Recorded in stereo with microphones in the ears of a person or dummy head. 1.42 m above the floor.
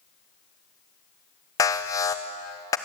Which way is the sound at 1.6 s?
15° left (ahead or behind).